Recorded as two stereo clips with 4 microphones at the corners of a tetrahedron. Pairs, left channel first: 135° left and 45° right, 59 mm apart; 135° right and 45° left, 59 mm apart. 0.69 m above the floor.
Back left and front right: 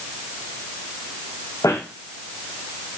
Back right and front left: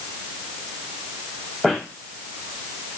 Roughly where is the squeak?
Behind left.